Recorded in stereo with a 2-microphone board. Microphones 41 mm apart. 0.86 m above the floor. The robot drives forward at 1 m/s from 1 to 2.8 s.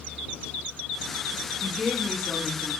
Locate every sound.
1.6 s a woman speaking: 25° right (ahead or behind), 0.6 m; by 2.7 s 10° right (ahead or behind), 1.6 m